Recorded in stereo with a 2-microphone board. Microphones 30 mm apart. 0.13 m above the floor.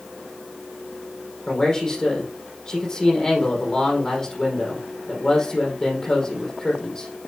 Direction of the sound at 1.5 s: 25° left (ahead or behind).